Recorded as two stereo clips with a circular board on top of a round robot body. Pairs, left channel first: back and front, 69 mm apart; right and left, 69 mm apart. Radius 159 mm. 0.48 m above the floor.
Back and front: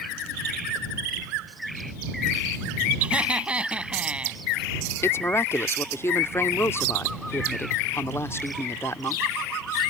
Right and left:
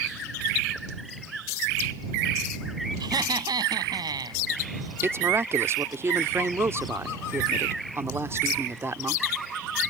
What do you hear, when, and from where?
3.0 s laughter: 75° left
5.0 s a woman speaking: 135° left